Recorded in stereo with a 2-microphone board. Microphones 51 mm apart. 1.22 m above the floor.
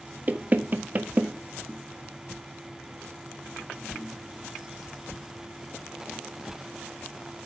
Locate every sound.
0.3 s knocking: 35° right (ahead or behind), 0.6 m